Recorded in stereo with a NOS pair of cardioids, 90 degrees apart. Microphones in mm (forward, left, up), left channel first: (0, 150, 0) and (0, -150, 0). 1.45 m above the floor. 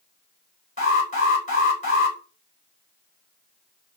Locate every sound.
0.8 s an alarm: 25° left, 3 m